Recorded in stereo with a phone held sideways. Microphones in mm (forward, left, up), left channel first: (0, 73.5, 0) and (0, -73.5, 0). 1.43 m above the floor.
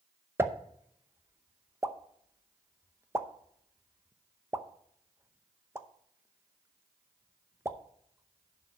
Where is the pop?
15° right (ahead or behind), 0.7 m.